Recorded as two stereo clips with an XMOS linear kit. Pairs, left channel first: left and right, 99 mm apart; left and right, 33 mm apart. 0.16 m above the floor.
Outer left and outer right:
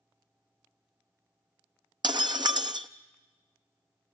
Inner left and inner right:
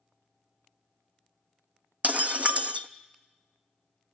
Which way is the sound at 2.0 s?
50° right (ahead or behind).